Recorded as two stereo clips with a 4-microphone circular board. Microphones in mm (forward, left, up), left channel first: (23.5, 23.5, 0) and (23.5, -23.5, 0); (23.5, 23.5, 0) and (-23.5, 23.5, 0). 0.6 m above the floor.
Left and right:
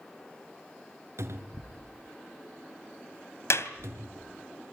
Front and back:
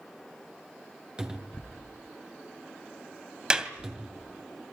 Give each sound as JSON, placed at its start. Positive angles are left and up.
{"t": 1.2, "sound": "a cupboard door", "azimuth_deg": -110, "distance_m": 3.0}
{"t": 3.5, "sound": "a clap", "azimuth_deg": 105, "distance_m": 2.5}